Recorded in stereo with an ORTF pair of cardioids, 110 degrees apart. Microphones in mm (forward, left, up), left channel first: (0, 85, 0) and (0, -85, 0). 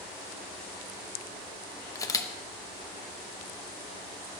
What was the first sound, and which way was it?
A camera shutter, 20° left.